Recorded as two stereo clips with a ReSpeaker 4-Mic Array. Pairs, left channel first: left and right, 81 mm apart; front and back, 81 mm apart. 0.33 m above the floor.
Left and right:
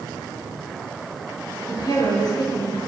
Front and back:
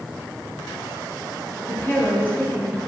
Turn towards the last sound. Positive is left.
turn(degrees=65)